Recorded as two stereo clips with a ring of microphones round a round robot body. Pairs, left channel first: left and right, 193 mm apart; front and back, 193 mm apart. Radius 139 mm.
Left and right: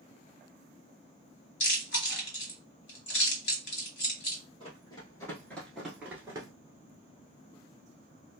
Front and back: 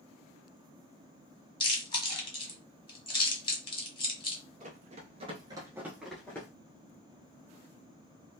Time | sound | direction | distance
1.6 | chewing | 65° left | 1.5 m
4.6 | running footsteps | 150° left | 1.1 m